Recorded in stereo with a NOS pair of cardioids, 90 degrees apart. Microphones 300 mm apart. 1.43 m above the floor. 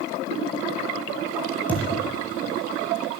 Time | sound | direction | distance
1.7 | a thud | 5° left | 7 m